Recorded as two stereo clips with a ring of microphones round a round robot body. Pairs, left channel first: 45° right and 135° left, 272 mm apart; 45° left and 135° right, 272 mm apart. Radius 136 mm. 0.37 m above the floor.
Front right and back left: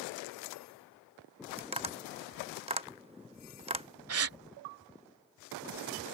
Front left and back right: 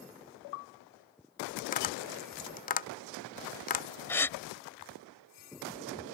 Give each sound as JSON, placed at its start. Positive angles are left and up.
{"t": 1.6, "sound": "tapping", "azimuth_deg": 80}
{"t": 4.1, "sound": "a gasp", "azimuth_deg": 125}